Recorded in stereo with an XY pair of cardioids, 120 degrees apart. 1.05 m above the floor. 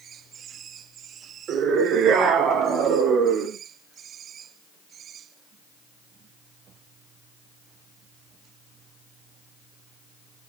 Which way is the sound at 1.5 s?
60° right.